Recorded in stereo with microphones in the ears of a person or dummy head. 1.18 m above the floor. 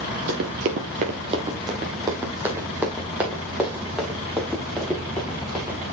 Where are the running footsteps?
55° right (ahead or behind), 1.8 m; by 5.8 s 5° left (ahead or behind), 6.5 m.